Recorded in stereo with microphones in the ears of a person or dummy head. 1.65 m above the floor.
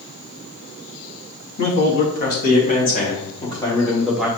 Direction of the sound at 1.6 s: 50° left (ahead or behind).